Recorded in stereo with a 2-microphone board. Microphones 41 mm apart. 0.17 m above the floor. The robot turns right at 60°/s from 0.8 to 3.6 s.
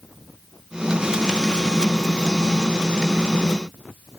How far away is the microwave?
I don't hear a microwave.